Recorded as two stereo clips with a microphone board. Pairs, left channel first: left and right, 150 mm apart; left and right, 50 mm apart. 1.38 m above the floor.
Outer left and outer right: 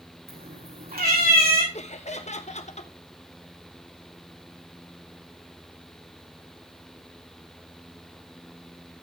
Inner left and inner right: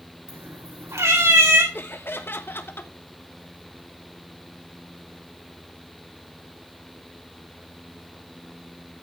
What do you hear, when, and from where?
0.3 s a cat meowing: 85° right, 5.5 m
1.7 s laughter: 50° left (ahead or behind), 1.3 m